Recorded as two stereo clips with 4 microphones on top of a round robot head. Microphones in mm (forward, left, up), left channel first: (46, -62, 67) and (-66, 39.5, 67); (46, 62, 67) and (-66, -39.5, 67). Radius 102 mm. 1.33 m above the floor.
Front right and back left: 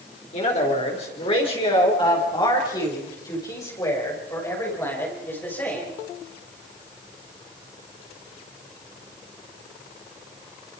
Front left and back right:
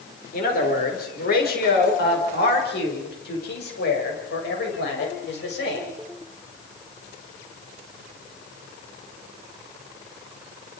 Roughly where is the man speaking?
Ahead.